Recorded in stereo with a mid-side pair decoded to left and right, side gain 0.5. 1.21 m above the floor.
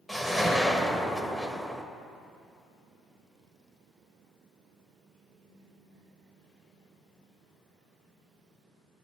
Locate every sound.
0.1 s a whoosh: 10° right, 1.3 m